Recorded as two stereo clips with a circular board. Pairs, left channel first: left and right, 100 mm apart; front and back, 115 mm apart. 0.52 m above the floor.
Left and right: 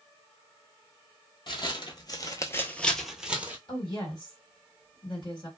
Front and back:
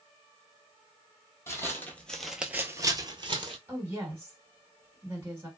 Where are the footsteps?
65° left, 0.9 m; by 3.6 s 160° right, 0.8 m.